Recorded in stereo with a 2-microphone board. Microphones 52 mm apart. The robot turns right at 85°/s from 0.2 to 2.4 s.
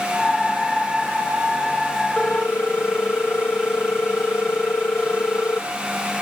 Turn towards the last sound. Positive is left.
turn(degrees=50)  # may be behind; listen again after turning